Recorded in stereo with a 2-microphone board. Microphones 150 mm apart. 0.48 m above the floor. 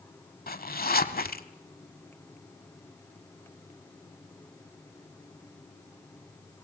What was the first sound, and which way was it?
A zipper, 85° left.